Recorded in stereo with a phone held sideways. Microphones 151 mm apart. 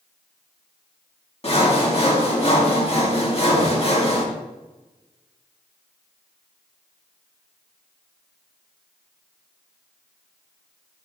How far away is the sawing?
About 1.7 m.